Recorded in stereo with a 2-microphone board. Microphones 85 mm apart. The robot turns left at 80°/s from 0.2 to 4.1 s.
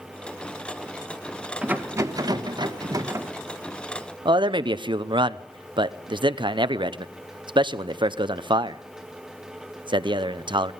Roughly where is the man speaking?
Right.